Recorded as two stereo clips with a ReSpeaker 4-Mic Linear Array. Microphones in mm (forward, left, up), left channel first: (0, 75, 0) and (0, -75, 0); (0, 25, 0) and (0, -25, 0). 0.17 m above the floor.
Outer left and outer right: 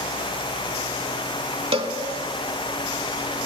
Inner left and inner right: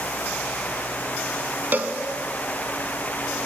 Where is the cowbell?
40° right (ahead or behind), 0.7 m.